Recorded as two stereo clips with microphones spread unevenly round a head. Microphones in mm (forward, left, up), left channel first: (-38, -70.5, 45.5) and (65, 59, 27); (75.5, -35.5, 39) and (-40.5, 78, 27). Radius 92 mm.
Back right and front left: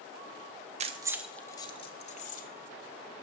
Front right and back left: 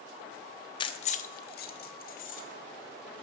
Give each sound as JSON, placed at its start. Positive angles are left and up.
{"t": 0.8, "sound": "keys jangling", "azimuth_deg": 5, "distance_m": 0.6}